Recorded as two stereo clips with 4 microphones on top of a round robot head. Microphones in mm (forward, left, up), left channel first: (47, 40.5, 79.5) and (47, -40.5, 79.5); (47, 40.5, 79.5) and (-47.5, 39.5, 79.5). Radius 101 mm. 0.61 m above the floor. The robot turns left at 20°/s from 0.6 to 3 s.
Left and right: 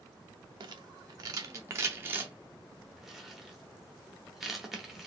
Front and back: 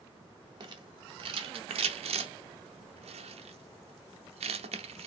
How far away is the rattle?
About 0.9 m.